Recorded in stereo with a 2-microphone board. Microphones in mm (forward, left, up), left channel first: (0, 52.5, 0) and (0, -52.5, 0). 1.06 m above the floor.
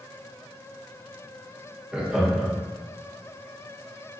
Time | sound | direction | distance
1.9 | laughter | 10° right (ahead or behind) | 0.8 m